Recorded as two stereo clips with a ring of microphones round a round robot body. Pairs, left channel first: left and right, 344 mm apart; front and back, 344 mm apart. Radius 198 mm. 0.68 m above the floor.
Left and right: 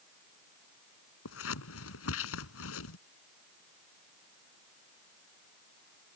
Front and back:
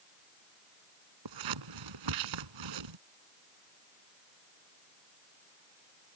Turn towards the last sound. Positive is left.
turn(degrees=145)